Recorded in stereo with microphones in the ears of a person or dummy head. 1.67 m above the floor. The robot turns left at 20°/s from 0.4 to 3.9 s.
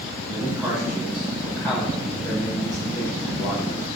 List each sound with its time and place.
0.3 s a man speaking: 170° right, 5.5 m; by 3.9 s 120° left, 5.5 m